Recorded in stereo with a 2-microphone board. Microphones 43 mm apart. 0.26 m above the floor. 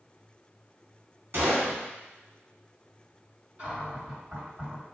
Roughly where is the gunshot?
Right.